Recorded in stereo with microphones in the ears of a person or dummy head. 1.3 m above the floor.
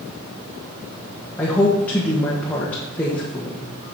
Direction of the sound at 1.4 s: 10° left (ahead or behind).